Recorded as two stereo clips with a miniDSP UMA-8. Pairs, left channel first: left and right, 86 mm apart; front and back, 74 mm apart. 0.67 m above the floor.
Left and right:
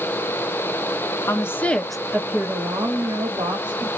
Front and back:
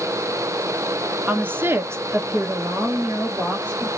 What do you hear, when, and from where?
1.3 s a woman speaking: 125° left, 0.7 m; by 3.9 s 115° right, 1.3 m